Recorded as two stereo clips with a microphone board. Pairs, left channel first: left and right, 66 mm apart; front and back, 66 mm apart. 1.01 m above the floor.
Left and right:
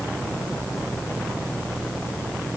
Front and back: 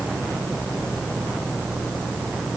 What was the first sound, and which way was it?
Only background noise.